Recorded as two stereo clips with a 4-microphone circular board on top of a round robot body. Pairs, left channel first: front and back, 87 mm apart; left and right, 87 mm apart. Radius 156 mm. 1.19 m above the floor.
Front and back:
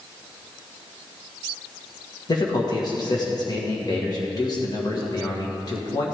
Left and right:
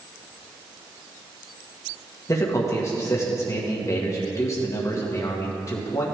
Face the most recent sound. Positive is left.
turn(degrees=40)